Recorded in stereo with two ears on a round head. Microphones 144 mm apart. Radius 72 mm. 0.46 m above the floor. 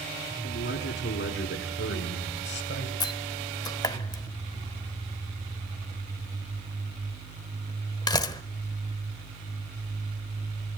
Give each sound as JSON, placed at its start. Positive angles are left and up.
{"t": 0.4, "sound": "a man speaking", "side_deg": 75, "distance_m": 4.5}
{"t": 3.0, "sound": "a door slam", "side_deg": 25, "distance_m": 0.9}